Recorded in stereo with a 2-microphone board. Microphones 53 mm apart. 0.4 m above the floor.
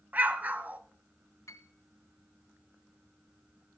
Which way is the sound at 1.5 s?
70° left (ahead or behind).